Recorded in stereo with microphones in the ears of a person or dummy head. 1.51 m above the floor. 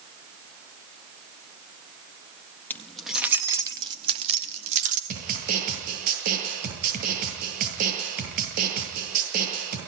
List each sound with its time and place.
2.7 s keys jangling: 10° left (ahead or behind), 1.7 m; by 5.0 s 45° right (ahead or behind), 3 m
5.1 s a snare drum: 50° right (ahead or behind), 9 m